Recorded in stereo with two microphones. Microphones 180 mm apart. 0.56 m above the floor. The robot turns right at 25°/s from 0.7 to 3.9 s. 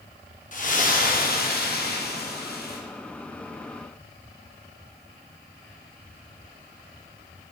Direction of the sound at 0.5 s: 55° left.